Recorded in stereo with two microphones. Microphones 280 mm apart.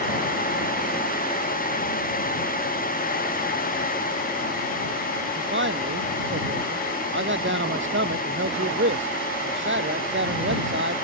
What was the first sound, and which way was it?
A man speaking, 40° right (ahead or behind).